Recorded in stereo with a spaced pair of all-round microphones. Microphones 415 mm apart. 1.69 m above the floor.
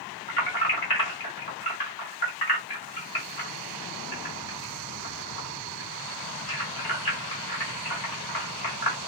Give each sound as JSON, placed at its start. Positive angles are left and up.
{"t": 0.3, "sound": "keys jangling", "side_deg": 65, "distance_m": 1.7}